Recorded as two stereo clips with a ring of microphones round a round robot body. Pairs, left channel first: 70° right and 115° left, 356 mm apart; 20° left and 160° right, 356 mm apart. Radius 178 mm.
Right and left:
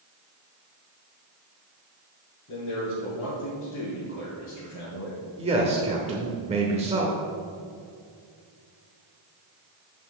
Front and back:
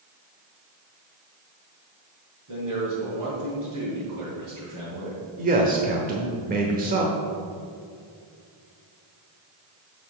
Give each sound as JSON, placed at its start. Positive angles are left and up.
{"t": 2.5, "sound": "a man speaking", "azimuth_deg": -125, "distance_m": 3.0}
{"t": 5.4, "sound": "a man speaking", "azimuth_deg": 165, "distance_m": 0.9}